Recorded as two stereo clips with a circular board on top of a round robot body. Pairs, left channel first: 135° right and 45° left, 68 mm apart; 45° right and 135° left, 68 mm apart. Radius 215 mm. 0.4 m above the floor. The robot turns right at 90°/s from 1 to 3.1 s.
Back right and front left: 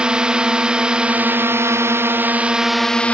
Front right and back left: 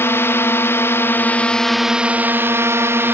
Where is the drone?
25° right; by 3.1 s 165° left.